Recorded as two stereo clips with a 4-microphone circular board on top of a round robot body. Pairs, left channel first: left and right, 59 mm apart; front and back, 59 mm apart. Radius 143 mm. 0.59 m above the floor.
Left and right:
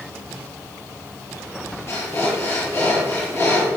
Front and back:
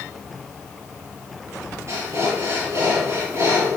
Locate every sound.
1.9 s breathing: 140° left, 5.5 m